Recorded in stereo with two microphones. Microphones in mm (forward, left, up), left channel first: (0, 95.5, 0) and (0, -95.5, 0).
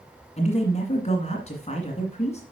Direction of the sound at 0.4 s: 35° left (ahead or behind).